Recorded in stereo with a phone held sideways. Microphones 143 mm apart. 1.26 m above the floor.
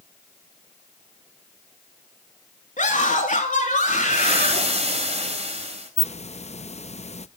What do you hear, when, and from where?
2.8 s a scream: 65° left (ahead or behind), 2.5 m
4.1 s frying: 50° right (ahead or behind), 3.5 m
6.0 s a hiss: 50° left (ahead or behind), 0.6 m